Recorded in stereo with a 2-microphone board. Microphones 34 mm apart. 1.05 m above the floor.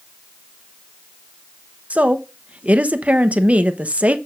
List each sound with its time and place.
1.9 s a woman speaking: 45° right (ahead or behind), 0.9 m